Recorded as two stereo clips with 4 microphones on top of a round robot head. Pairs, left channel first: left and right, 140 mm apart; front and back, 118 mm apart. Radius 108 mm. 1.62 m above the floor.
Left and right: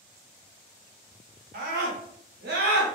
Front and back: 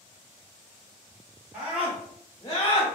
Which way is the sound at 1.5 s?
95° right.